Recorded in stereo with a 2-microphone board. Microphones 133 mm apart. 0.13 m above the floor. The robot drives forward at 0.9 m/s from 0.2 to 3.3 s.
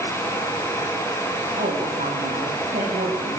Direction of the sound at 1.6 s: 80° right.